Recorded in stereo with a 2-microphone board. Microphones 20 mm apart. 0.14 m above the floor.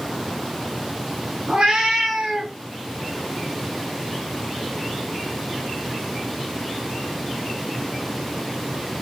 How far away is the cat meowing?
About 1.0 m.